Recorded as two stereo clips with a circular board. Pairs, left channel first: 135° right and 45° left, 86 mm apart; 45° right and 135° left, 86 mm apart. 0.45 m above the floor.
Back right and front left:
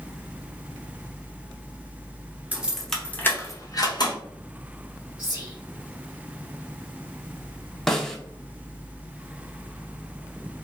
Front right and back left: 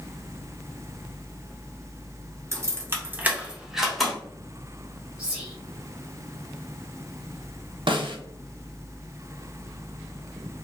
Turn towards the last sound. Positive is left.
turn(degrees=140)